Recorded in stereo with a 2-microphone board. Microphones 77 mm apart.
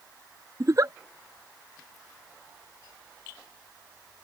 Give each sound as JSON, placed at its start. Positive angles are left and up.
{"t": 0.6, "sound": "a giggle", "side_deg": -45}